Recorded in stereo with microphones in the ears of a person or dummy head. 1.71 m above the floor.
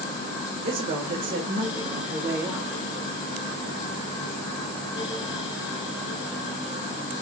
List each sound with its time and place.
0.7 s a woman speaking: 65° right (ahead or behind), 1.2 m; by 2.7 s 10° right (ahead or behind), 1.4 m